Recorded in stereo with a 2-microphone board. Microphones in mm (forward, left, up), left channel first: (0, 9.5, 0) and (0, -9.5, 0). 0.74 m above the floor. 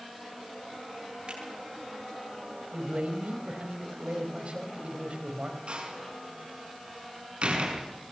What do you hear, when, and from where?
1.3 s a finger snap: 55° right (ahead or behind), 9.5 m
2.7 s a man speaking: 65° right (ahead or behind), 4 m
5.7 s a door slam: 60° right (ahead or behind), 6 m